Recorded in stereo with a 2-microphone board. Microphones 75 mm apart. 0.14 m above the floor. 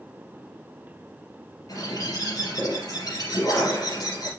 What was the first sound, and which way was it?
A bird, 55° left (ahead or behind).